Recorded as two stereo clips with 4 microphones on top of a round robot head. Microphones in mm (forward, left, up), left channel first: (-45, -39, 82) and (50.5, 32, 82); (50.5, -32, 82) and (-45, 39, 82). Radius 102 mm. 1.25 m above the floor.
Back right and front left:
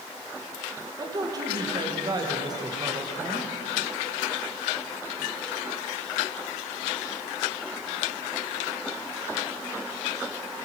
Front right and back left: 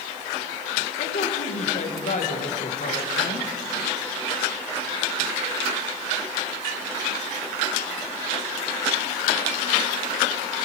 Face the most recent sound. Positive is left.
turn(degrees=-20)